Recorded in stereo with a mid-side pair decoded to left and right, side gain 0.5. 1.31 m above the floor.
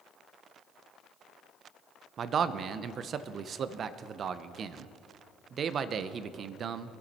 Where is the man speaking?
50° right, 0.8 m.